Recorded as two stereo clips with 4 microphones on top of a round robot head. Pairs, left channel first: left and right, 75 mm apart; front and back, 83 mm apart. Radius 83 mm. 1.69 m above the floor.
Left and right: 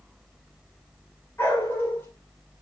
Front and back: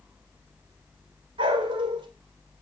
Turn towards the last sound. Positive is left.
turn(degrees=165)